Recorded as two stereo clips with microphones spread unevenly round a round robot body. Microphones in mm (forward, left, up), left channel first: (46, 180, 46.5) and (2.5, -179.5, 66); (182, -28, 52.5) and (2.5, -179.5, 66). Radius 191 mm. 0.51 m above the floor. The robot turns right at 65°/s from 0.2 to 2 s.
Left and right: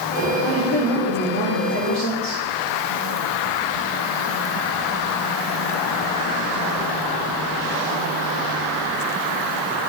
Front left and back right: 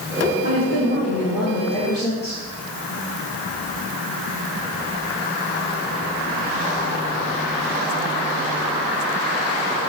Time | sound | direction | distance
0.4 | a woman speaking | 10° right | 2 m